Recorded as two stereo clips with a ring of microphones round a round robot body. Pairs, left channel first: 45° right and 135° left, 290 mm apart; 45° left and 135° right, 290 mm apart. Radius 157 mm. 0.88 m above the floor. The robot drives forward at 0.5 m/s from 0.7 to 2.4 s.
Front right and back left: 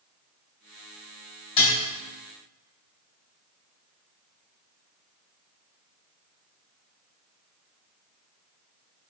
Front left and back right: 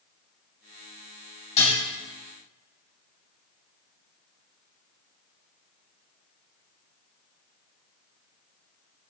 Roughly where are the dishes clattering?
Ahead right.